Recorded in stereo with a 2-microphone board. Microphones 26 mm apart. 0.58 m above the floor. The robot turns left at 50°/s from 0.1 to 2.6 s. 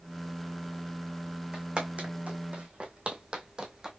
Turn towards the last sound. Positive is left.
turn(degrees=-25)  # may be behind; listen again after turning